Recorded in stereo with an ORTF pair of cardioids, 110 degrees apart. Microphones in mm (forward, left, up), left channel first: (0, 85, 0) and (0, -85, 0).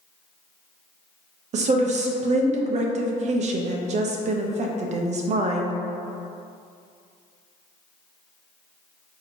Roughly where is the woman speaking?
Ahead right.